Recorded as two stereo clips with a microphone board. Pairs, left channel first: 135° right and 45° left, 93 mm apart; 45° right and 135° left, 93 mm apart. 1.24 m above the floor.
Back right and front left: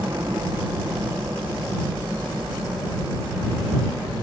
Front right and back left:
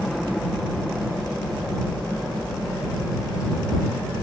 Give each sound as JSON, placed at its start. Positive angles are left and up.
{"t": 0.0, "sound": "a helicopter", "azimuth_deg": 35}